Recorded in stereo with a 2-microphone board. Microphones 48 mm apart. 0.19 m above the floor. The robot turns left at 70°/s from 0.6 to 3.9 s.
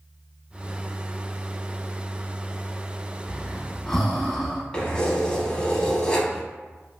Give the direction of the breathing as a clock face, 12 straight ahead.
5 o'clock.